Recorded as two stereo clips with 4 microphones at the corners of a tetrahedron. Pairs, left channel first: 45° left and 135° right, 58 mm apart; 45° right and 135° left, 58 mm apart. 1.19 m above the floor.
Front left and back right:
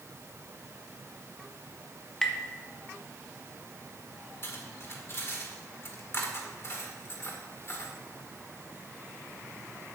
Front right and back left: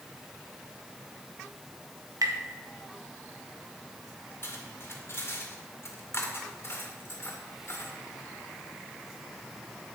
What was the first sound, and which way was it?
Tapping, 125° left.